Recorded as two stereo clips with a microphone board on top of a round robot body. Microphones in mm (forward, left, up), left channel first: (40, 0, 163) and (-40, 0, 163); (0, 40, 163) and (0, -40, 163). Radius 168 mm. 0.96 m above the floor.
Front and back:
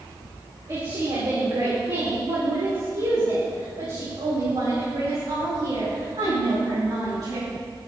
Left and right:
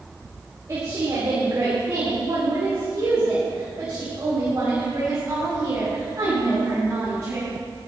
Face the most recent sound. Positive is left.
turn(degrees=-155)